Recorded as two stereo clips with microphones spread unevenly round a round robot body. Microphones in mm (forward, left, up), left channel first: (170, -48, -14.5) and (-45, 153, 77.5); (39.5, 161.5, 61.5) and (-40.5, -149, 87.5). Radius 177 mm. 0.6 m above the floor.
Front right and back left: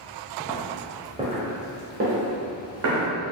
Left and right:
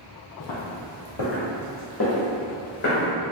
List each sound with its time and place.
0.4 s footsteps: 45° left, 1.0 m; by 3.1 s 140° left, 1.6 m